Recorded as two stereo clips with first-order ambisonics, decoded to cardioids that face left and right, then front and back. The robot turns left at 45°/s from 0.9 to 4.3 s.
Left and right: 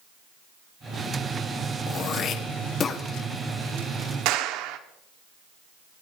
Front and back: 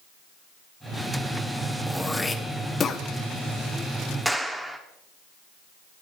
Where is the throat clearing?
90° left, 1.1 m; by 3.0 s 40° left, 1.1 m.